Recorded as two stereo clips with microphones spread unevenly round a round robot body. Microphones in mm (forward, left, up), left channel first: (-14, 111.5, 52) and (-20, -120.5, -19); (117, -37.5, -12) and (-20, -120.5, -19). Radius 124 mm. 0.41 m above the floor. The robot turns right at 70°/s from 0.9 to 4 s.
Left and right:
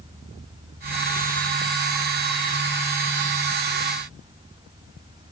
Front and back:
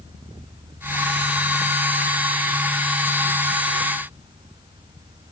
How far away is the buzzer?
No buzzer in this recording.